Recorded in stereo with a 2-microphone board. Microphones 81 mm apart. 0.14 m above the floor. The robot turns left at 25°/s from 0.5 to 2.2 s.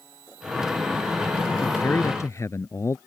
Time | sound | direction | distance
1.6 | a man speaking | 25° left (ahead or behind) | ?